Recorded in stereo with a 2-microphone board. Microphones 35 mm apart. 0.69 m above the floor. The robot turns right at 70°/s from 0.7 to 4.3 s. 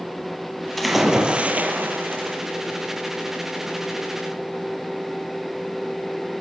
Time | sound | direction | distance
0.8 | a splash | 175° left | 5 m